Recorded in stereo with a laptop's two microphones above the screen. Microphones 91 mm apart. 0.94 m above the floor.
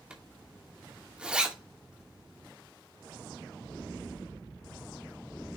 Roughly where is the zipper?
Centre.